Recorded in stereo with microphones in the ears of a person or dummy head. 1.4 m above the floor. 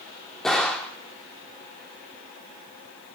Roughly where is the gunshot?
Centre.